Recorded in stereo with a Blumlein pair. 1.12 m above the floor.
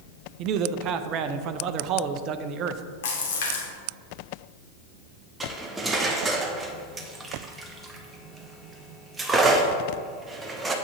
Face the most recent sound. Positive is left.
turn(degrees=-15)